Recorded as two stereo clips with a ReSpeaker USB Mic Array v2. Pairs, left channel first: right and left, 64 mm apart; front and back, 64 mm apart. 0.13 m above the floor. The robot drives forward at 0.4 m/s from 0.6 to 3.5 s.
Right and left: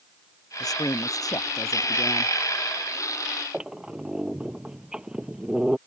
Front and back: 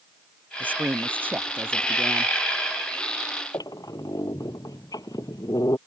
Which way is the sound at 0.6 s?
115° right.